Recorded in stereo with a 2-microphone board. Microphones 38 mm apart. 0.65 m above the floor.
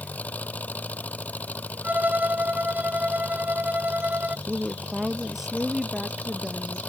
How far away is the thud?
I don't hear a thud.